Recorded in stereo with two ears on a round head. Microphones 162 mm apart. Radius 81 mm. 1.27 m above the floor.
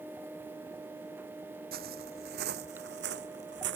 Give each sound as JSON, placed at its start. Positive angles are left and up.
{"t": 1.7, "sound": "footsteps", "side_deg": -55}